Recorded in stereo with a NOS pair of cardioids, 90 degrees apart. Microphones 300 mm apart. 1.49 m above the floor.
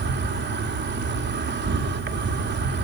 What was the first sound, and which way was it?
An insect, 35° right.